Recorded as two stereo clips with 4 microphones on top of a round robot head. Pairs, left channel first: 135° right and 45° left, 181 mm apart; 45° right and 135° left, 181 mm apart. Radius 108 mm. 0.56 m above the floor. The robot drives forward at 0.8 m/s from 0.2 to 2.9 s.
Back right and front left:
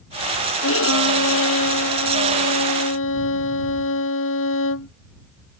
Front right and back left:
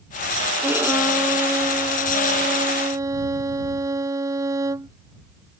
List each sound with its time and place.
0.6 s a violin: 140° right; by 4.9 s 150° right